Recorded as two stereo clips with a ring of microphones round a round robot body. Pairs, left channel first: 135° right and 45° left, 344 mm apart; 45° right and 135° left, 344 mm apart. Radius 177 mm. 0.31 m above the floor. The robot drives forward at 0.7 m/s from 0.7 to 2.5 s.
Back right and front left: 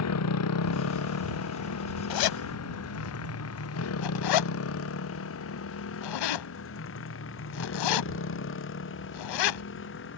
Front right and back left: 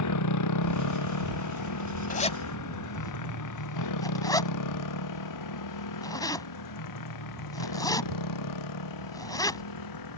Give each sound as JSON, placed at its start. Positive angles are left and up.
{"t": 0.0, "sound": "a motorcycle", "azimuth_deg": -85}
{"t": 2.1, "sound": "a zipper", "azimuth_deg": -110}